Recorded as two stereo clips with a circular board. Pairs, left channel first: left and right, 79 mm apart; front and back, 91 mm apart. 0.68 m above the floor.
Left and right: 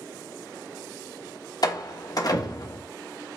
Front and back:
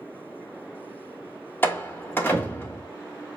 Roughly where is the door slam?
Ahead left.